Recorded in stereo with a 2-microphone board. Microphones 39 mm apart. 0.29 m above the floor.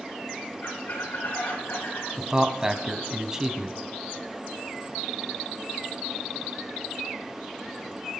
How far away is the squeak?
About 6.5 m.